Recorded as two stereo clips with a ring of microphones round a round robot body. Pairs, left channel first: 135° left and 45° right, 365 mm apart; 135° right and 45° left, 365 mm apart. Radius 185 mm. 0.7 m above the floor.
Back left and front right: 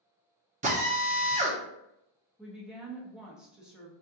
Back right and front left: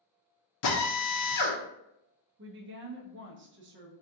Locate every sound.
0.6 s a drill: 115° right, 0.8 m
2.4 s a woman speaking: 40° left, 0.8 m